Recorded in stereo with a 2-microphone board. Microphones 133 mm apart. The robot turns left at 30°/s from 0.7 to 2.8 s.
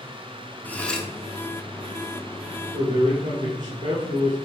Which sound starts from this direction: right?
A man speaking, at 2.7 s.